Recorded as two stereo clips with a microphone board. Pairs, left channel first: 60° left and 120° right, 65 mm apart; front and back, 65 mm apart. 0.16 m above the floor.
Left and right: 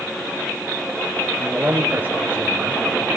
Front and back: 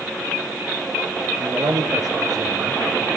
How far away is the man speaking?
About 2.5 m.